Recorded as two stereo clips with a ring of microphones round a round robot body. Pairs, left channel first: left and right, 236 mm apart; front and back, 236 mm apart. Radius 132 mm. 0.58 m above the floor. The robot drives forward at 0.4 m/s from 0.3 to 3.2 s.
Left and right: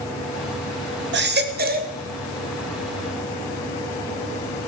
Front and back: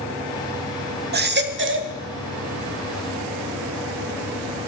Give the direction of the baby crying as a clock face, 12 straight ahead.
4 o'clock.